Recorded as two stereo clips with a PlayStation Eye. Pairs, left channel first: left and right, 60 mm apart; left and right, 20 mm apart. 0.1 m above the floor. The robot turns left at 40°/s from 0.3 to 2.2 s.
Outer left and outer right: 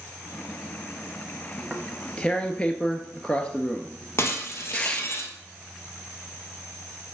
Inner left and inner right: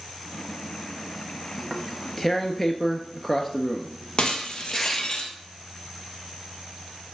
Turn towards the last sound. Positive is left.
turn(degrees=50)  # may be behind; listen again after turning